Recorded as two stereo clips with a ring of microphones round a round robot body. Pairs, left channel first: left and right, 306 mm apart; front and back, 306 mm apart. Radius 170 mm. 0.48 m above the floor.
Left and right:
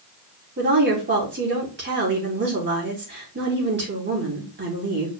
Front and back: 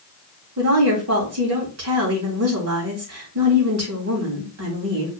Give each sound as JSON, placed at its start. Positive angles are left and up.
{"t": 0.6, "sound": "a woman speaking", "azimuth_deg": -145, "distance_m": 4.0}